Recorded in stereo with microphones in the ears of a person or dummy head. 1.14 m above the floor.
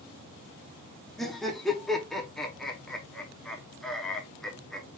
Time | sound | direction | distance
1.2 | laughter | 5° left (ahead or behind) | 0.6 m